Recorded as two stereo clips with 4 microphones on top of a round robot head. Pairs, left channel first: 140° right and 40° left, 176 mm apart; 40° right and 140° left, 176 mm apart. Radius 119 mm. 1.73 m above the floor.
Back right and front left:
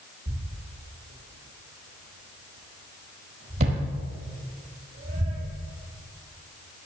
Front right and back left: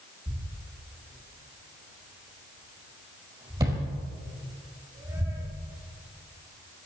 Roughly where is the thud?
Left.